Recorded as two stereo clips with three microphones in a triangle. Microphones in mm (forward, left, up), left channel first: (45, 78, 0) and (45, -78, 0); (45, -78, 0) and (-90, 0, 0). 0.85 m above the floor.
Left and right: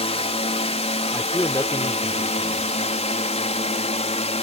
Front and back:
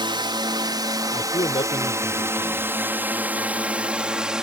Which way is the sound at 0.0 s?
110° left.